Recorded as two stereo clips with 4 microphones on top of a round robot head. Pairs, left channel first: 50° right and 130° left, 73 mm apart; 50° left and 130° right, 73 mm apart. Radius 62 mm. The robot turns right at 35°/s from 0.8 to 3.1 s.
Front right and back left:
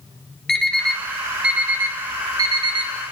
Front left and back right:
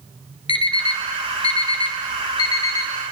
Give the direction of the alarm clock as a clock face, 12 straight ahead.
11 o'clock.